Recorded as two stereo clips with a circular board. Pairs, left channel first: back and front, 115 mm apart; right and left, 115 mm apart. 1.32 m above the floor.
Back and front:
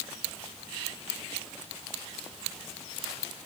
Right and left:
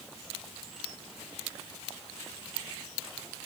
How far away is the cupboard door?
No cupboard door in this recording.